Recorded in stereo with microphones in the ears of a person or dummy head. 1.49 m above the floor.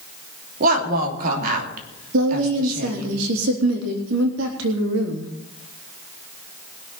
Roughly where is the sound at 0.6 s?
Right.